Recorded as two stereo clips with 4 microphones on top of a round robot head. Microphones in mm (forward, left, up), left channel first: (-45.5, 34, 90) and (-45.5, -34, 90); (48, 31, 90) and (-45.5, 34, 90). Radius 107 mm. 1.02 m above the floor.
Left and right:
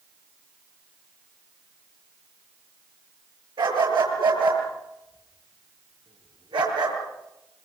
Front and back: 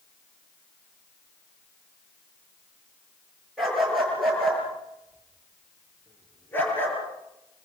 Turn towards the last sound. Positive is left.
turn(degrees=-70)